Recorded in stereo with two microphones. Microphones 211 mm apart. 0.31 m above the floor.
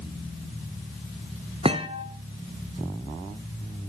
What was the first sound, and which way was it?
A thud, 25° right (ahead or behind).